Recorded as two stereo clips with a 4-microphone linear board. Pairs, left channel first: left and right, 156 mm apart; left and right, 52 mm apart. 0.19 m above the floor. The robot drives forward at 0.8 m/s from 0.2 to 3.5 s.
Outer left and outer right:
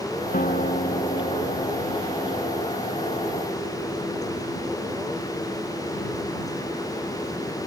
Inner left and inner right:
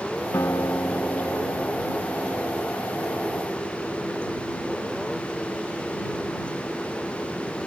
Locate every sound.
0.3 s a guitar: 60° left (ahead or behind); by 3.4 s 70° left (ahead or behind)